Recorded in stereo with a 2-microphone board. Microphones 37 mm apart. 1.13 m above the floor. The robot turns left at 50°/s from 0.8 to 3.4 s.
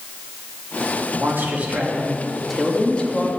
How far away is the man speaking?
About 2.5 m.